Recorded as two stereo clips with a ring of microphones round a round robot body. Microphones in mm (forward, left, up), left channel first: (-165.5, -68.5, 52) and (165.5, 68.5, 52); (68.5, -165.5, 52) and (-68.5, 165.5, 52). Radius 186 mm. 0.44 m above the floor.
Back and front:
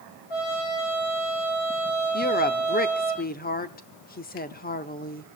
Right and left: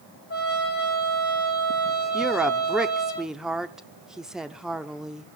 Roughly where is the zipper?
No zipper in this recording.